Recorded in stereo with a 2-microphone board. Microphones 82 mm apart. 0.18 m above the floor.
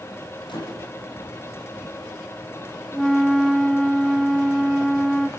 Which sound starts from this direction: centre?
A flute, at 2.9 s.